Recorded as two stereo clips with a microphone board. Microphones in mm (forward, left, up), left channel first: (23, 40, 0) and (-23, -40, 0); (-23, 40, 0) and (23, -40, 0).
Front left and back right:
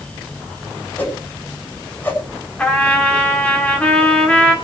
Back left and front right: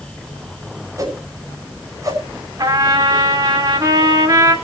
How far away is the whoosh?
About 6 m.